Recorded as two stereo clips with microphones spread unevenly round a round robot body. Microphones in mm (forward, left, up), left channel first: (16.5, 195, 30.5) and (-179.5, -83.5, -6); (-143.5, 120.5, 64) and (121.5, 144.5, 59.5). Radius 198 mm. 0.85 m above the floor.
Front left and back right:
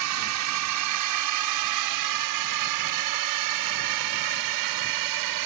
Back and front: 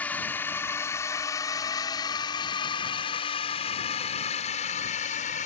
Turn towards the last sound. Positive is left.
turn(degrees=-105)